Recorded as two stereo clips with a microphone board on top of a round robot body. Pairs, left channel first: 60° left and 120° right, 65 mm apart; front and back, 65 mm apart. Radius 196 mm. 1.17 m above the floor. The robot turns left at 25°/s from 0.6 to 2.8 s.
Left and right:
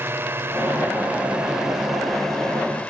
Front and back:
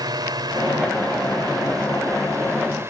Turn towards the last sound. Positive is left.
turn(degrees=130)